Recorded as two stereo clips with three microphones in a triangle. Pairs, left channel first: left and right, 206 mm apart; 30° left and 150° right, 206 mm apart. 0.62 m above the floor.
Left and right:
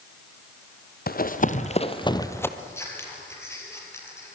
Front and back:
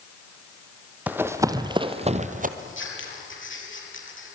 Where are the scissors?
10° left, 5 m.